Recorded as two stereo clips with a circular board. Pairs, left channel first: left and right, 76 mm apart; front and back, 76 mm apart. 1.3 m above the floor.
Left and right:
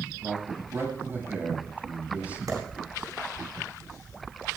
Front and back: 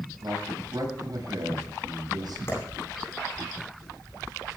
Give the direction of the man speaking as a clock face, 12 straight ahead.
5 o'clock.